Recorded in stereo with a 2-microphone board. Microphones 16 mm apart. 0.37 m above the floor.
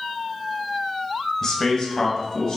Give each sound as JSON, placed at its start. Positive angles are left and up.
{"t": 1.4, "sound": "a man speaking", "side_deg": 30, "distance_m": 1.5}